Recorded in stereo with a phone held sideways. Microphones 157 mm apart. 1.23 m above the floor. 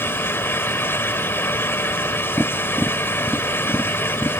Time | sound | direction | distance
0.0 | a fan | 15° left (ahead or behind) | ?
2.4 | tapping | centre (ahead or behind) | ?